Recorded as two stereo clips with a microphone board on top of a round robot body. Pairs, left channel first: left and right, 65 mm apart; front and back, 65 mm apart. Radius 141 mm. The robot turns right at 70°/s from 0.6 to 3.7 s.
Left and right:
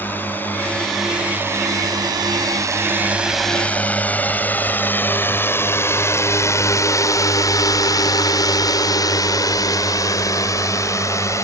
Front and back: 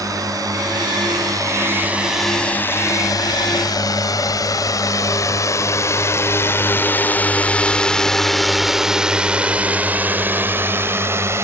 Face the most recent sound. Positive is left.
turn(degrees=130)